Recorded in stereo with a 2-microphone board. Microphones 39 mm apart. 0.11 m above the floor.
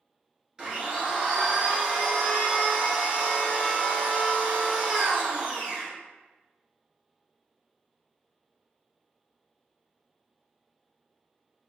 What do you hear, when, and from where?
0.6 s a blender: 20° right (ahead or behind), 1.7 m